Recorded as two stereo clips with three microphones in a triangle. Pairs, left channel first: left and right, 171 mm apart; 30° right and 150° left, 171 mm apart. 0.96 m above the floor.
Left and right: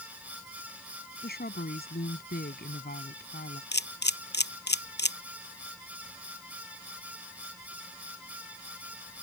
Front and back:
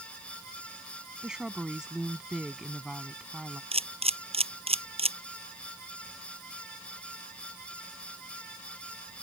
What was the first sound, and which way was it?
A woman speaking, 65° left.